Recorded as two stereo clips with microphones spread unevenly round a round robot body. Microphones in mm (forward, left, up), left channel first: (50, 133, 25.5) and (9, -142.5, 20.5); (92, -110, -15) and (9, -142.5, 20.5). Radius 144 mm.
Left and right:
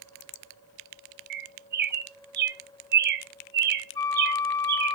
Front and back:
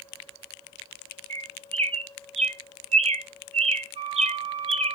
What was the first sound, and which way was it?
A bird, 150° right.